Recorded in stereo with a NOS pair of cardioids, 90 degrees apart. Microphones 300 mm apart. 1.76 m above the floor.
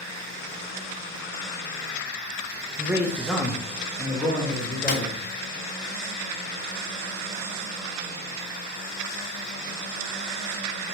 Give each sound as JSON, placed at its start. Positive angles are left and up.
{"t": 2.8, "sound": "a man speaking", "azimuth_deg": -10, "distance_m": 0.6}
{"t": 4.9, "sound": "a snare drum", "azimuth_deg": 30, "distance_m": 0.9}